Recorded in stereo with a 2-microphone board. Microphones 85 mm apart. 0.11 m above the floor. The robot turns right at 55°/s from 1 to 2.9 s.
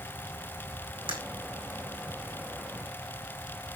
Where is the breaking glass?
80° right, 3.5 m.